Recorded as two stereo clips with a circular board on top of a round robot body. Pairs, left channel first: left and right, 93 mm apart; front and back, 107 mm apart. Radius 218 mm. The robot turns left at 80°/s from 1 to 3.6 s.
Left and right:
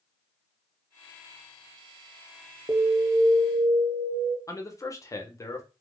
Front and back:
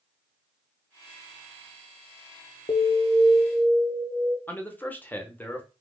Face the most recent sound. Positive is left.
turn(degrees=65)